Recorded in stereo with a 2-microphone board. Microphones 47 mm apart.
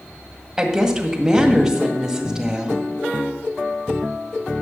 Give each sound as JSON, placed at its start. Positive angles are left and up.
{"t": 0.6, "sound": "a woman speaking", "side_deg": -10, "distance_m": 1.8}